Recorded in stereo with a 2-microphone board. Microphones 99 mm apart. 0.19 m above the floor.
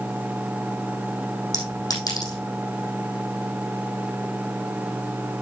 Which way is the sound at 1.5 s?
40° left (ahead or behind).